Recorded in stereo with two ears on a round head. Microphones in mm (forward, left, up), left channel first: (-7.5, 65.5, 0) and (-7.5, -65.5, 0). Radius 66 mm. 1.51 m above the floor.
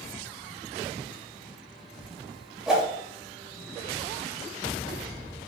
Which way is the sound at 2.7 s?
5° right (ahead or behind).